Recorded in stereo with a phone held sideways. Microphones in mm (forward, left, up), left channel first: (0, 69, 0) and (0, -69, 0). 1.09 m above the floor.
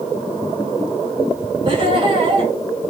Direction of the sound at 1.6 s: 40° right (ahead or behind).